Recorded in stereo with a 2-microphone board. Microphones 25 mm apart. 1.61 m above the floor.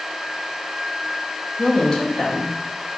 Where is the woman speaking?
25° left (ahead or behind), 0.7 m.